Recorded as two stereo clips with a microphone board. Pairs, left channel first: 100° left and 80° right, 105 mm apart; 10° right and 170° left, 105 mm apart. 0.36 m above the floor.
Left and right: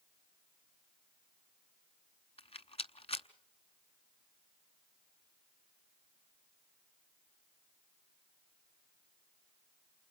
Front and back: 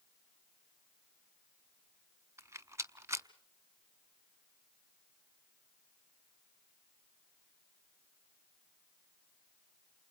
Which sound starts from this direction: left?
A rattle, at 2.4 s.